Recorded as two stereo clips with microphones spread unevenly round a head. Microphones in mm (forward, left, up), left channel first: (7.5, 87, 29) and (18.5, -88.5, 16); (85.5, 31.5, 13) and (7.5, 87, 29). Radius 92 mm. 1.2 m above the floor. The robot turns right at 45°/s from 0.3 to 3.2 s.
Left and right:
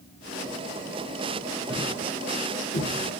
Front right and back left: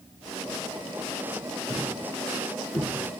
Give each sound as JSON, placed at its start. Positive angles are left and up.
{"t": 1.7, "sound": "a thud", "azimuth_deg": 10, "distance_m": 6.0}